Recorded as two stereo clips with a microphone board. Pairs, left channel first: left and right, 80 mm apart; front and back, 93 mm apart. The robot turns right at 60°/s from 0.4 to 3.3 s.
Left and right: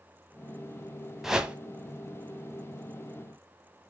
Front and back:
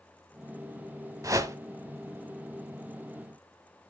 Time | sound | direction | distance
1.2 | a whoosh | 170° right | 1.2 m